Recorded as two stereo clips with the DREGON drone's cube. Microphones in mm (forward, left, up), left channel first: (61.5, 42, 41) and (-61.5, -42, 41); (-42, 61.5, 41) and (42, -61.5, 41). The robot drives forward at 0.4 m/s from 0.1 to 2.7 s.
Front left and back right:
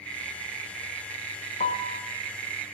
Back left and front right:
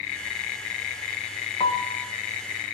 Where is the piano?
70° left, 0.9 m; by 2.0 s 80° left, 0.8 m.